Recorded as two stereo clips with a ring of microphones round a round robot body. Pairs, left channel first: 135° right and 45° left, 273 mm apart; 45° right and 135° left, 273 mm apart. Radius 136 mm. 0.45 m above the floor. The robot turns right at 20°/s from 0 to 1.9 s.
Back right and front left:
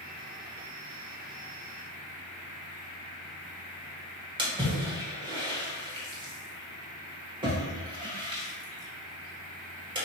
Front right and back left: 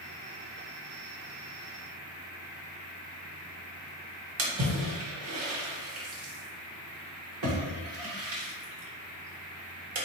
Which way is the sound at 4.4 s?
115° left.